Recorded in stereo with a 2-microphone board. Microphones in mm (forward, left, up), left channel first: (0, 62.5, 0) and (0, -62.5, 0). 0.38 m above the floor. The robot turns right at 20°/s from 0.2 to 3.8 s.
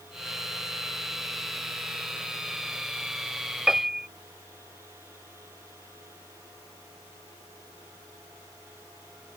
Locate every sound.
3.7 s a piano: 5° right (ahead or behind)